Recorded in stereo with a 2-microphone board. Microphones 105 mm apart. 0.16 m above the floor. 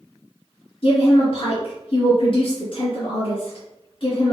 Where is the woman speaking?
45° left (ahead or behind), 2.0 m.